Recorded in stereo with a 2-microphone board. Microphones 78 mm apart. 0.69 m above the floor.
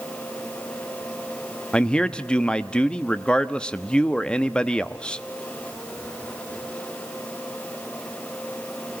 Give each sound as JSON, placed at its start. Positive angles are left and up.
{"t": 1.7, "sound": "a man speaking", "side_deg": 10, "distance_m": 0.9}